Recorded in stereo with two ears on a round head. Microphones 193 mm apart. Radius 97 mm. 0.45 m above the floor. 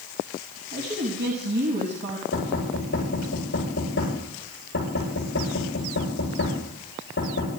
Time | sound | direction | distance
0.7 | a woman speaking | 55° right (ahead or behind) | 3.5 m
2.3 | knocking | 50° left (ahead or behind) | 9 m